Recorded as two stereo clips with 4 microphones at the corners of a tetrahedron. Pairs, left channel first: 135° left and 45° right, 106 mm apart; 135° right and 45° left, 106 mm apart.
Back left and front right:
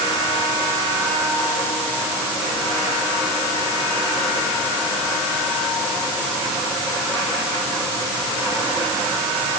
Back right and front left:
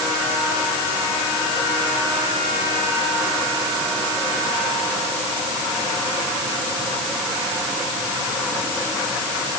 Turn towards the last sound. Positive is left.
No sound to turn to.